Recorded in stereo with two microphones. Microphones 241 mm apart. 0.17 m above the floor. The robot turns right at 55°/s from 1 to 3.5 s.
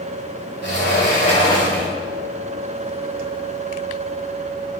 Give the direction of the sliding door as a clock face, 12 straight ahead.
8 o'clock.